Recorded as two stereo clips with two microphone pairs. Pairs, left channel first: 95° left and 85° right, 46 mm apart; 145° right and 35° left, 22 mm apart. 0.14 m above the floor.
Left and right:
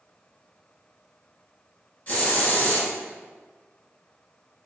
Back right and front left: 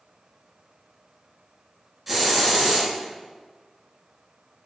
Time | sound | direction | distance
2.1 | a hiss | 115° left | 1.3 m